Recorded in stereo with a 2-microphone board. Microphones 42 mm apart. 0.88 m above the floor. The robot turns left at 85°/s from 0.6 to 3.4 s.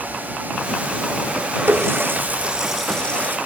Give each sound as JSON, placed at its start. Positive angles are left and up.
{"t": 1.7, "sound": "a running tap", "side_deg": -80}